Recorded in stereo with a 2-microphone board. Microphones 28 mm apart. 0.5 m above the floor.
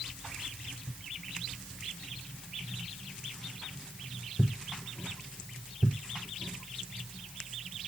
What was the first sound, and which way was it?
Only background noise.